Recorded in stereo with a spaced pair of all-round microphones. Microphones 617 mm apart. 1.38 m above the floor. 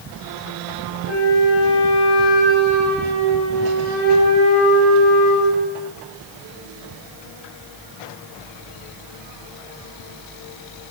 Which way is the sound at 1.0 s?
80° left.